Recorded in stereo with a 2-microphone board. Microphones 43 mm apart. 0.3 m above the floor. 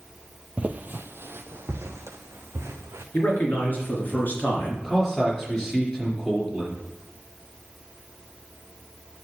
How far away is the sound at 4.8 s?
About 4 m.